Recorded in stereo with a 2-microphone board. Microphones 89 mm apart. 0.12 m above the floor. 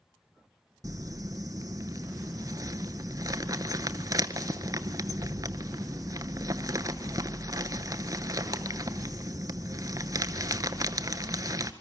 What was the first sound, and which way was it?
Crumpling, 45° right (ahead or behind).